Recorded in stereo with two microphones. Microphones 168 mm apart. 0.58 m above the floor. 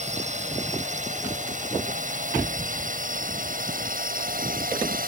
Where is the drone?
45° right (ahead or behind); by 5.1 s 60° right (ahead or behind).